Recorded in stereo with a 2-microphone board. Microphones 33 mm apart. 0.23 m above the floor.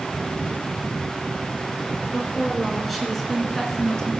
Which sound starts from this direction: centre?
A woman speaking, at 2.1 s.